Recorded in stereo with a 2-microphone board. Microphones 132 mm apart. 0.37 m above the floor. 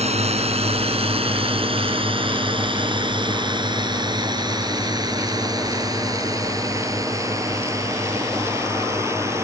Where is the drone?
50° right (ahead or behind); by 9.4 s 20° right (ahead or behind).